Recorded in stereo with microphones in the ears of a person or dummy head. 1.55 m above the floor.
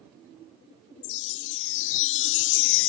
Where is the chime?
75° left (ahead or behind).